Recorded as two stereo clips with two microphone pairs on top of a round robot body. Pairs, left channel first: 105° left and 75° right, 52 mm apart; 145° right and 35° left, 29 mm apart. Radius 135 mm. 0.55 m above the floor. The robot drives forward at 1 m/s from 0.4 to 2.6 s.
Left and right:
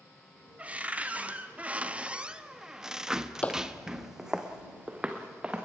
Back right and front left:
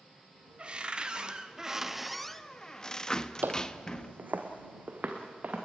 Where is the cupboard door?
15° right, 2 m; by 4.2 s 120° right, 1.1 m.